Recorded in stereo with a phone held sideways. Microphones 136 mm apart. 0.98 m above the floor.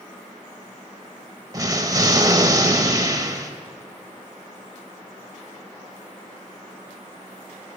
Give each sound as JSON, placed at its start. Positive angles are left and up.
{"t": 1.5, "sound": "an explosion", "side_deg": -25, "distance_m": 0.8}